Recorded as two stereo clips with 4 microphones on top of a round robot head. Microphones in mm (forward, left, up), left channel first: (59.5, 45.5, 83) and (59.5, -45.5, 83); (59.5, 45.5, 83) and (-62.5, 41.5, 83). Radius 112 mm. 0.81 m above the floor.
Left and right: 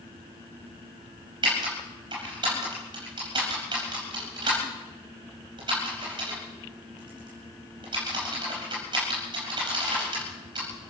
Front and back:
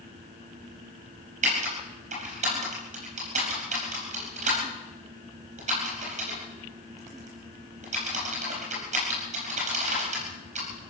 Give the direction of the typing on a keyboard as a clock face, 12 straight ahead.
5 o'clock.